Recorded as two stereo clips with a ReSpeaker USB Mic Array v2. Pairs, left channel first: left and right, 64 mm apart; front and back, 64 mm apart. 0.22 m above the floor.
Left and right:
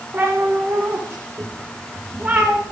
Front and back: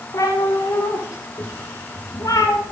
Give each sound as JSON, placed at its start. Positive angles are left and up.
{"t": 0.1, "sound": "a cat meowing", "azimuth_deg": -35, "distance_m": 8.0}